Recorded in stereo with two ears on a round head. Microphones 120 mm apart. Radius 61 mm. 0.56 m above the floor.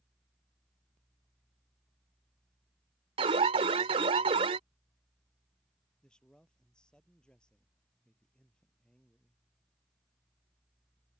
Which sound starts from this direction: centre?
A man speaking, at 6.0 s.